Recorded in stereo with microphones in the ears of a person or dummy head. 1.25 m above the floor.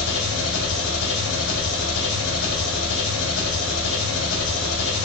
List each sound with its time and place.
0.0 s an engine running: 75° left (ahead or behind), 0.9 m